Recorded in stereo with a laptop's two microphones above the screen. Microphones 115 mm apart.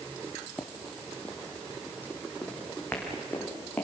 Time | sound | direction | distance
0.6 | running footsteps | 5° left (ahead or behind) | 1.4 m